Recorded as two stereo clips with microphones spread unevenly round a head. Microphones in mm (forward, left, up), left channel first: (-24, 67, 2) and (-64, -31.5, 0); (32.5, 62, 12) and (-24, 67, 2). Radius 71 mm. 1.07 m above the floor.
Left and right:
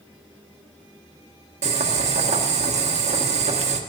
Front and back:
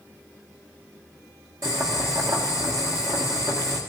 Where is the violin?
I don't hear a violin.